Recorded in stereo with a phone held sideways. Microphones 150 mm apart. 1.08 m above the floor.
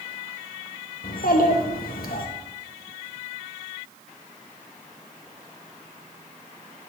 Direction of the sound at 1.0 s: 75° left (ahead or behind).